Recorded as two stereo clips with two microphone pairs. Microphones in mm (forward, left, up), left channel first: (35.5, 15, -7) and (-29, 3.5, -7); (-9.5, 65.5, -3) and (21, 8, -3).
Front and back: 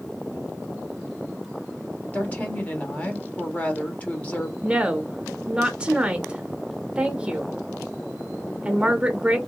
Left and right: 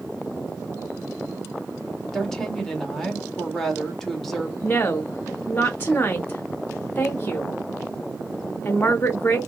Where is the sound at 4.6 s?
130° left, 0.6 m.